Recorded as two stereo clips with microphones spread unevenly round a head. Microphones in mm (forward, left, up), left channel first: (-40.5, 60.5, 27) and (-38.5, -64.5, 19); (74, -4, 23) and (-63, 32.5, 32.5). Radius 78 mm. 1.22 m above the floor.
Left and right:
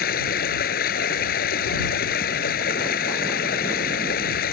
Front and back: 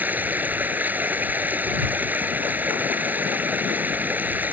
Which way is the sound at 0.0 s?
85° left.